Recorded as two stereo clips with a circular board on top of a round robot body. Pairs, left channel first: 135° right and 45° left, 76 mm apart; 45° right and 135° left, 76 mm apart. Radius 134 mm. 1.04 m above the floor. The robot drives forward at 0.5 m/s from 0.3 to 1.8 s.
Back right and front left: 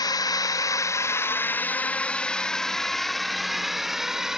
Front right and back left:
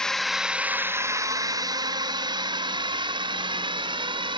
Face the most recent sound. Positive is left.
turn(degrees=130)